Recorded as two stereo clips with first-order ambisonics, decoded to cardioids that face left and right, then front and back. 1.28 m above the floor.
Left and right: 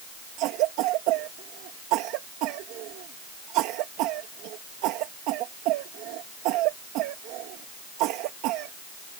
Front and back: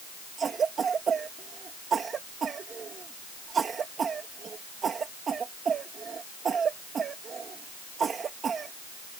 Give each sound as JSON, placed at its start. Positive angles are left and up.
{"t": 0.4, "sound": "a cough", "azimuth_deg": -115}